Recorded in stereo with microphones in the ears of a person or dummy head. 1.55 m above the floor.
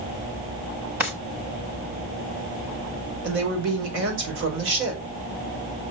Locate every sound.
1.0 s a drawer: 10° right (ahead or behind), 1.0 m
3.2 s a woman speaking: 85° right, 5 m